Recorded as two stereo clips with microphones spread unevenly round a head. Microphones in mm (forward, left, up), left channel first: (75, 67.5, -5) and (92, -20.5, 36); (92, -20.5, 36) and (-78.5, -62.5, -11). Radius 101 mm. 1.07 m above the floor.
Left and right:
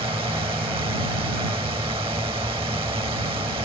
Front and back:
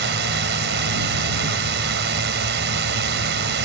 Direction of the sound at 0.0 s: 145° right.